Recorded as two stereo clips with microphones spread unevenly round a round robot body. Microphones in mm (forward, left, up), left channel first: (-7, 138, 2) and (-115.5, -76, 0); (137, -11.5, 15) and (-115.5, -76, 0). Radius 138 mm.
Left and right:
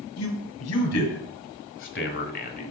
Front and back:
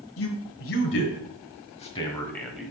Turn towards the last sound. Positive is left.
turn(degrees=115)